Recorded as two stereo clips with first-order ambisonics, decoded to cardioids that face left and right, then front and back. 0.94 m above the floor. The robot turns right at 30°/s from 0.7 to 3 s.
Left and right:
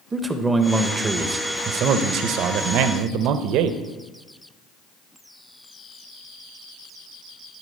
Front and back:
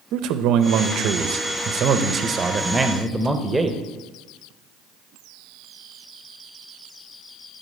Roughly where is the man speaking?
Behind.